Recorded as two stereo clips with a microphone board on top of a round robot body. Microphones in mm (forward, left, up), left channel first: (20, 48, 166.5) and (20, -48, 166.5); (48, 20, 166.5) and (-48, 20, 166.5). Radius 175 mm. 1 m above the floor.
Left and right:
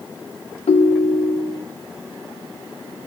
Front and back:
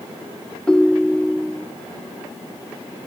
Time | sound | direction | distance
0.7 | a ringtone | 85° left | 1.2 m